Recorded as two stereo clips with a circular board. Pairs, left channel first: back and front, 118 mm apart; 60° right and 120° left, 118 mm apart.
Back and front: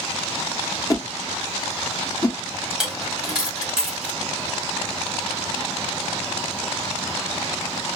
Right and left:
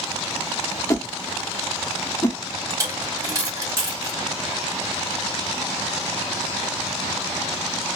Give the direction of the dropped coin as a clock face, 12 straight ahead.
9 o'clock.